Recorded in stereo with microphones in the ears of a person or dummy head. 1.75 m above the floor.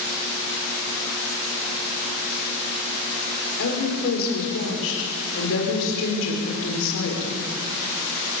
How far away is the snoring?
No snoring in this recording.